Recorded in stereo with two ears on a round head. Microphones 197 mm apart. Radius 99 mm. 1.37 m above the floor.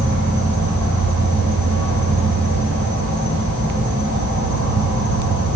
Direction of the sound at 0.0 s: 55° right (ahead or behind).